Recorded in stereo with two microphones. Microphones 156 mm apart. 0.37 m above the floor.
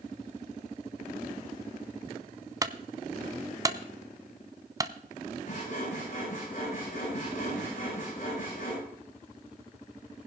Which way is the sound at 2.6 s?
25° right (ahead or behind).